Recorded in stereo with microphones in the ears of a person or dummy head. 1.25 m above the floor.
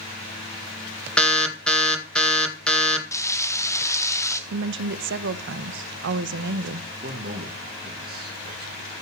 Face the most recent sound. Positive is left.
turn(degrees=-45)  # may be behind; listen again after turning